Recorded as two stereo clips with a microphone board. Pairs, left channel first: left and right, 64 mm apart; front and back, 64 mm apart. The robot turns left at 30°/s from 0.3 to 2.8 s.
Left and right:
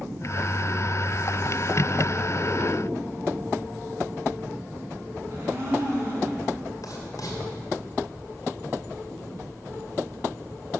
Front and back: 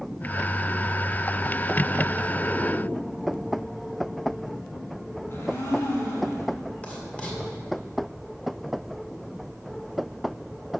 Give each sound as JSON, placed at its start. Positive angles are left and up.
{"t": 5.3, "sound": "a blender", "azimuth_deg": -45, "distance_m": 2.0}
{"t": 6.8, "sound": "writing", "azimuth_deg": 70, "distance_m": 1.9}